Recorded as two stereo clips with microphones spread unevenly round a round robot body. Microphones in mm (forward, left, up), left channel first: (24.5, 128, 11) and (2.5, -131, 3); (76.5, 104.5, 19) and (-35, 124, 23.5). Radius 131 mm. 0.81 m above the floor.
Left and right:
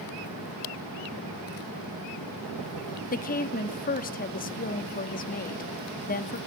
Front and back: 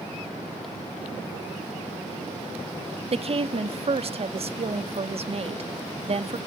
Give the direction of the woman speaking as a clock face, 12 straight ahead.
7 o'clock.